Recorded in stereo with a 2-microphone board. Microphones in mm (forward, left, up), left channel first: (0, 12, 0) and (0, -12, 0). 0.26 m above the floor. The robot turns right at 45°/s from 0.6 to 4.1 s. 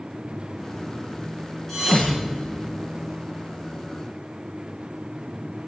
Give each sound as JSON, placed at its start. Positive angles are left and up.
{"t": 1.7, "sound": "a thud", "side_deg": 0, "distance_m": 7.5}